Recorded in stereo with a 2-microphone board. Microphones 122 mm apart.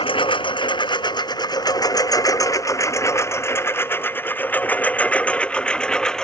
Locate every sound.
0.0 s a lawn mower: 50° left (ahead or behind); by 6.2 s 5° left (ahead or behind)